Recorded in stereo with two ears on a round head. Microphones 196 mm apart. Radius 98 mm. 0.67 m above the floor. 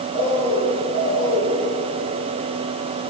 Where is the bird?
80° left, 6.5 m.